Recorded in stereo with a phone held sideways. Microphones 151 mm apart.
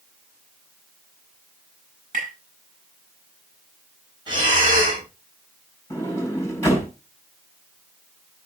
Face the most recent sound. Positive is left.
turn(degrees=15)  # may be behind; listen again after turning